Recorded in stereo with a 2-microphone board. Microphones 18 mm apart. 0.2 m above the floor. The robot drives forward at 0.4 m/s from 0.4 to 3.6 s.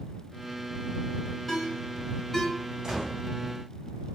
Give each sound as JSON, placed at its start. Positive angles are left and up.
{"t": 1.5, "sound": "a ringtone", "side_deg": 20, "distance_m": 1.5}
{"t": 2.8, "sound": "a gunshot", "side_deg": -40, "distance_m": 2.5}